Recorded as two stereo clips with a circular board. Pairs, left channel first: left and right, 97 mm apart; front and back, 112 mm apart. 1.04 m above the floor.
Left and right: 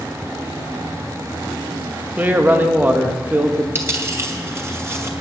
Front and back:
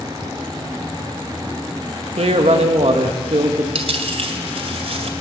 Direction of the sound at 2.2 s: 160° right.